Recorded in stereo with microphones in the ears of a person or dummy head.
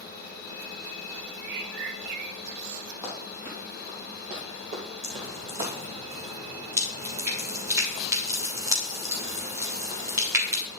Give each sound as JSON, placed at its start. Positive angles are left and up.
{"t": 1.4, "sound": "a bird", "side_deg": -65, "distance_m": 0.6}
{"t": 3.0, "sound": "running footsteps", "side_deg": -5, "distance_m": 3.0}
{"t": 5.0, "sound": "dripping", "side_deg": -15, "distance_m": 1.8}